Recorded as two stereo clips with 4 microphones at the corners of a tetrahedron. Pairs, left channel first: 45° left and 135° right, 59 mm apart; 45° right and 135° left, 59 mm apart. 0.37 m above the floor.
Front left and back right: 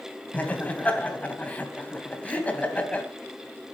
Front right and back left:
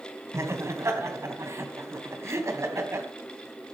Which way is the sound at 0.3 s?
105° left.